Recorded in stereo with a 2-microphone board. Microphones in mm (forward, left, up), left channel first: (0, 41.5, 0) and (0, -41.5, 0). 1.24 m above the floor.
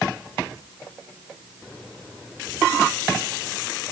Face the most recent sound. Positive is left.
No sound to turn to.